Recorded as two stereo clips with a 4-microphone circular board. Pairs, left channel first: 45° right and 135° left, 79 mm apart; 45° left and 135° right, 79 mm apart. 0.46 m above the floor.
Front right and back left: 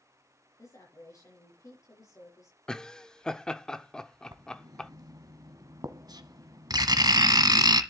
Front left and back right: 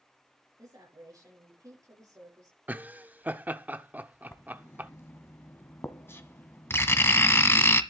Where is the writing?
105° left, 1.2 m.